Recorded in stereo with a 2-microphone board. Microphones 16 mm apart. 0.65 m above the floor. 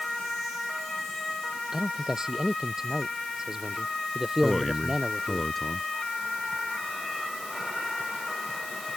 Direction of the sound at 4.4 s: Centre (ahead or behind).